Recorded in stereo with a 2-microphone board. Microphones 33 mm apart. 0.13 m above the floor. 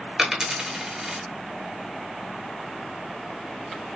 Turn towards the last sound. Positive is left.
turn(degrees=-15)  # may be behind; listen again after turning